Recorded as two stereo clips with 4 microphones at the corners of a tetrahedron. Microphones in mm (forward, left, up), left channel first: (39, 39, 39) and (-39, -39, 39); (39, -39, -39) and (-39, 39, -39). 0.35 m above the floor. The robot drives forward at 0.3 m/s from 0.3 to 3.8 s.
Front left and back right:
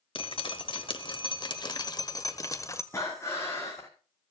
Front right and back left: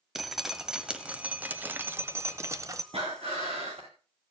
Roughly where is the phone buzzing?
No phone buzzing in this recording.